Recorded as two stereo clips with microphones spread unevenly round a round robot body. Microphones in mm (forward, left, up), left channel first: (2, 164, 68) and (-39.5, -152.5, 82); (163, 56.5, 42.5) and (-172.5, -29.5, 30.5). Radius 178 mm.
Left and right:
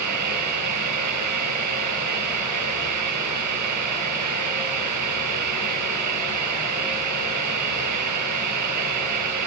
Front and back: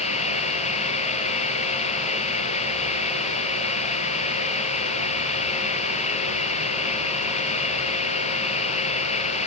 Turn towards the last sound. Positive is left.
turn(degrees=-60)